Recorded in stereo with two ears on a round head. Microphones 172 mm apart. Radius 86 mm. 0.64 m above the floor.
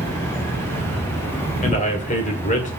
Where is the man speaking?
40° left (ahead or behind), 2 m.